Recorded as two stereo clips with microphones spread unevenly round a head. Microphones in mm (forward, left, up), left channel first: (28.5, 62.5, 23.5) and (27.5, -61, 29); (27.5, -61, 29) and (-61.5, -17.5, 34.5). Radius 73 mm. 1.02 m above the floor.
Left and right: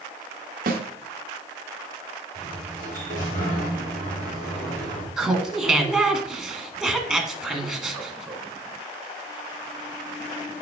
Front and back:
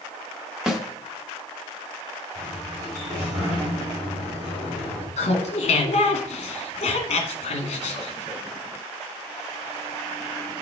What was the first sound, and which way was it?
A snare drum, 120° right.